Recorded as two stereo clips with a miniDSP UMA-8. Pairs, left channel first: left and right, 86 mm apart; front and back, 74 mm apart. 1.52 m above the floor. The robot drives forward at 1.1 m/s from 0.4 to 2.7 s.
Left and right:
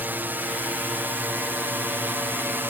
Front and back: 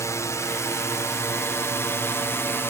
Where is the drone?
30° right; by 2.7 s 35° right.